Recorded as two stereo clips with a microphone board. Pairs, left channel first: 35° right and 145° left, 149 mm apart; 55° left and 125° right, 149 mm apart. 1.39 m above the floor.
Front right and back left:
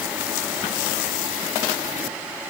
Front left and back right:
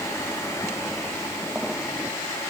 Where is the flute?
I don't hear a flute.